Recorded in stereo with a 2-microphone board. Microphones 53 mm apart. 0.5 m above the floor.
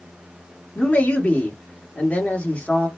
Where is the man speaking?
35° left (ahead or behind), 1.2 m.